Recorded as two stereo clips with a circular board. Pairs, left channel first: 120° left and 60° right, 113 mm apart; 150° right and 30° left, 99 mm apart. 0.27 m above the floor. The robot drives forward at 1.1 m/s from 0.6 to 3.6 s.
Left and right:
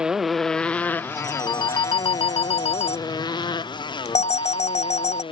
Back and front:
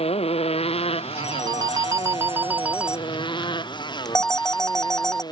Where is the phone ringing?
65° left; by 5.2 s 125° left.